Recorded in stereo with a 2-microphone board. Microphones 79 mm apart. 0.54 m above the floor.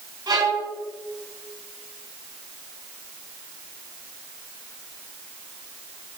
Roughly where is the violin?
Right.